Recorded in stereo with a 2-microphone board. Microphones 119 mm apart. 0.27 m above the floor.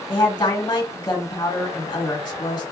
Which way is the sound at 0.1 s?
40° left (ahead or behind).